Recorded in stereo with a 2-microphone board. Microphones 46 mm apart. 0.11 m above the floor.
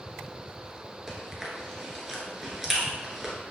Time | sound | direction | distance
1.1 | chewing | 5° right (ahead or behind) | 1.0 m